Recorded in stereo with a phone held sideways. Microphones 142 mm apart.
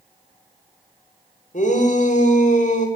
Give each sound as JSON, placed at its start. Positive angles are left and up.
{"t": 1.5, "sound": "a shout", "side_deg": 65, "distance_m": 5.0}